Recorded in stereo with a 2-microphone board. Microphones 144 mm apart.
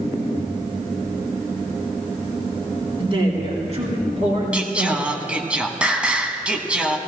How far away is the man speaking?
About 2.5 m.